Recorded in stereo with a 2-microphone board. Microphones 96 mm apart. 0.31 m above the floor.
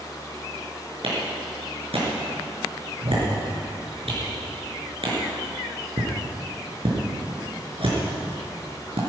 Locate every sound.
1.0 s a clap: 75° right (ahead or behind), 5 m